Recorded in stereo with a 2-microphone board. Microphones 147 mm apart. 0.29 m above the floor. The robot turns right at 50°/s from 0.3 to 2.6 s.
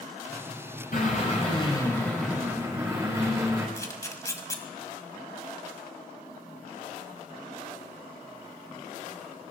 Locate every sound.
0.9 s a drill: 115° left, 7 m; by 3.7 s 160° right, 7 m
3.8 s a camera shutter: 20° left (ahead or behind), 2 m